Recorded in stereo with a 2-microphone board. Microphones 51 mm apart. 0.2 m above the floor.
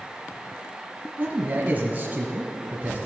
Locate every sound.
1.2 s a man speaking: 30° right (ahead or behind), 1.3 m